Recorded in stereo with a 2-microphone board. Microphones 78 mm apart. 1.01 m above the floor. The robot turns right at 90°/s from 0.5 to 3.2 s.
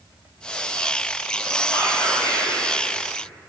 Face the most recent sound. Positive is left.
turn(degrees=-170)